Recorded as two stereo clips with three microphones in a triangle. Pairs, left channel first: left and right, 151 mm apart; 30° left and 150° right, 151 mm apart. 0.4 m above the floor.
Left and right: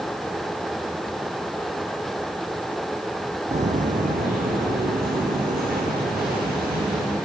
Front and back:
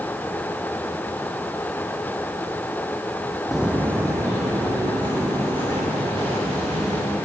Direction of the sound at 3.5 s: 60° right.